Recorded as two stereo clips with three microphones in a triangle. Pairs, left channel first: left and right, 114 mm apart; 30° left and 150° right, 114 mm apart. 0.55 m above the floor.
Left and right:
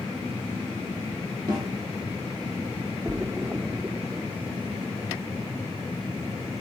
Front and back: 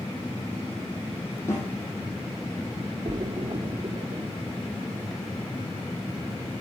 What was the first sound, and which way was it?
A snare drum, 40° right.